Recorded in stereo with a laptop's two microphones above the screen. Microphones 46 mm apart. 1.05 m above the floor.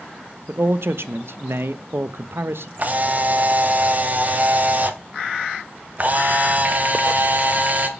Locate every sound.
0.5 s a man speaking: 65° right (ahead or behind), 0.7 m
2.8 s a camera shutter: 40° right (ahead or behind), 0.9 m